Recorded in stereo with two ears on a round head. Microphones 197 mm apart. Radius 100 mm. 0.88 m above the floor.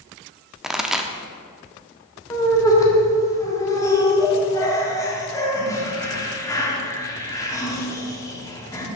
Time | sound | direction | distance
0.6 | a pop | centre (ahead or behind) | 0.6 m
2.3 | laughter | 15° left (ahead or behind) | 1.7 m